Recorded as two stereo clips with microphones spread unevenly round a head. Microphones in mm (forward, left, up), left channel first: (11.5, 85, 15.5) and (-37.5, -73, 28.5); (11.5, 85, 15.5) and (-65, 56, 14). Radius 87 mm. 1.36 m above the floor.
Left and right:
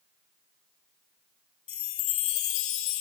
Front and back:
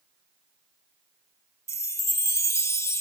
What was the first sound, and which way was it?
A chime, 70° left.